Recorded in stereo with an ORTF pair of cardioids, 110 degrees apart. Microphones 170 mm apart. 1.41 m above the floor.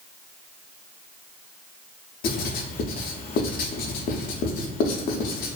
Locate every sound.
2.2 s writing: 60° left, 0.5 m